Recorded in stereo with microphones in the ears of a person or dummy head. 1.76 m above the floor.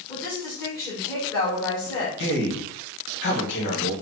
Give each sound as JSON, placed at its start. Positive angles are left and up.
{"t": 0.1, "sound": "a woman speaking", "side_deg": 20, "distance_m": 1.5}
{"t": 2.2, "sound": "a man speaking", "side_deg": 55, "distance_m": 1.5}